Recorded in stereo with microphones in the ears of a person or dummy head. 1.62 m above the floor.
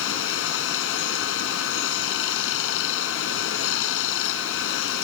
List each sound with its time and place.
0.0 s running water: 75° left (ahead or behind)